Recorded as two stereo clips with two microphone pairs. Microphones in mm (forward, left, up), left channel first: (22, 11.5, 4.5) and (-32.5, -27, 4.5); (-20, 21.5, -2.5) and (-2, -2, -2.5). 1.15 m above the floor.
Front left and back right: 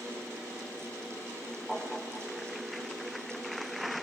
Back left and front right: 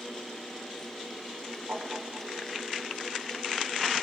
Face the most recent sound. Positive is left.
turn(degrees=-35)